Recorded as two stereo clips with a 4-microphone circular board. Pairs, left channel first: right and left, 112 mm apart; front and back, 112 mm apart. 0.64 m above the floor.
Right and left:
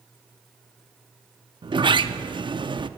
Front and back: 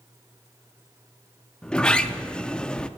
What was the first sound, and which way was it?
A sliding door, 80° left.